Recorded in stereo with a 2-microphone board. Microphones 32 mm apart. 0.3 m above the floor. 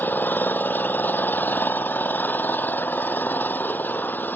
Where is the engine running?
85° left.